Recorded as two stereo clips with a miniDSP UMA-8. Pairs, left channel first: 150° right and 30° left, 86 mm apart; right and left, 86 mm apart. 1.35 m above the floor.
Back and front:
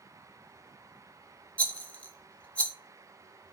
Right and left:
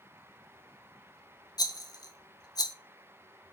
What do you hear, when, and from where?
1.6 s a rattle: 80° right, 0.6 m